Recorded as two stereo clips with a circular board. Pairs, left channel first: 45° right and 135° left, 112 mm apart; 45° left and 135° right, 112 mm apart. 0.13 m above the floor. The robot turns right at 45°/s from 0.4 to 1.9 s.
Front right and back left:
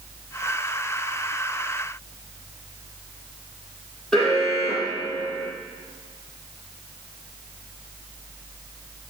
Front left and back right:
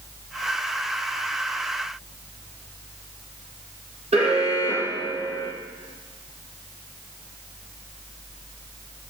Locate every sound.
4.1 s an alarm: 130° right, 5 m